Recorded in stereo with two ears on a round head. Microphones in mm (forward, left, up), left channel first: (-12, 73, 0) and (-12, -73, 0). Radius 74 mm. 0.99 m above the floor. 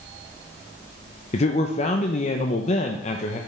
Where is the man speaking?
40° left (ahead or behind), 0.7 m.